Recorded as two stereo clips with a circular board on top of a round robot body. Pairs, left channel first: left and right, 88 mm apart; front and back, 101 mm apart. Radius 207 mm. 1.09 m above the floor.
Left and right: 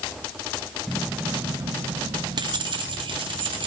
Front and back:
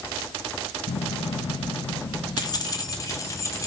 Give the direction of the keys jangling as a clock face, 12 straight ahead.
12 o'clock.